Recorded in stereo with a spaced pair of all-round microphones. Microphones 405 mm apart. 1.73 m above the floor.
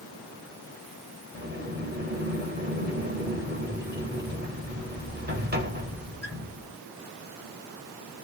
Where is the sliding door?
25° right (ahead or behind), 1.2 m.